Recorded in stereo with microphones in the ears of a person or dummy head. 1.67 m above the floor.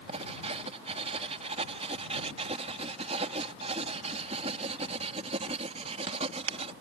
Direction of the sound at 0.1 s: 35° right (ahead or behind).